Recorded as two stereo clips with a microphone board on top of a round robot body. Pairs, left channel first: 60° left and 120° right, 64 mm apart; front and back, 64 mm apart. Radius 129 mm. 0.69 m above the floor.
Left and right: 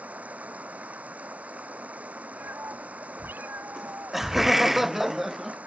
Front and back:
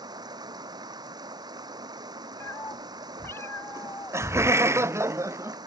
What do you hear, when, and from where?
0.0 s running water: 175° left
2.4 s a cat meowing: 55° right
3.8 s laughter: 155° left